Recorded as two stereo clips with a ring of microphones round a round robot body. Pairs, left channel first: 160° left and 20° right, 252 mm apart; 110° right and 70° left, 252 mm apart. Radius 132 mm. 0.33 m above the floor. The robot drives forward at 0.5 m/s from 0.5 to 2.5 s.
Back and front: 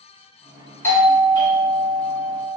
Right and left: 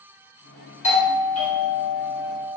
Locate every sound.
0.8 s a doorbell: 130° right, 1.8 m; by 2.6 s 155° right, 2 m